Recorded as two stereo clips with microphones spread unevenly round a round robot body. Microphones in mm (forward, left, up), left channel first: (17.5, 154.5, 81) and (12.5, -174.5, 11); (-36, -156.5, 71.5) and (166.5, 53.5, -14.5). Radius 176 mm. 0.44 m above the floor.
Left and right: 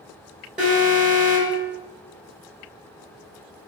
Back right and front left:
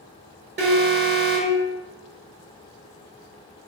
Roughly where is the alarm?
Ahead.